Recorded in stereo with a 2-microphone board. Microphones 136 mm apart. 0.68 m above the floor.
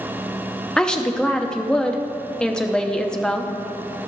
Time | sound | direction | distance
0.8 | a woman speaking | 5° left (ahead or behind) | 0.8 m